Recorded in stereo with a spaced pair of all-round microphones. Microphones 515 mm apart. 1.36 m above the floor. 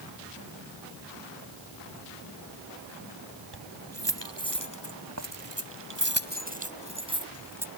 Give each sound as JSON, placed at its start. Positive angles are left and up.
{"t": 3.5, "sound": "keys jangling", "side_deg": -50}